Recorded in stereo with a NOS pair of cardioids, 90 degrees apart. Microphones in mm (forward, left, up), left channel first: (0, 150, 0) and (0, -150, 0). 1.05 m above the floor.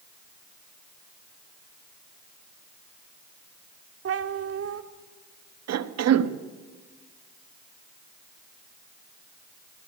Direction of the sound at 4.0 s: 50° right.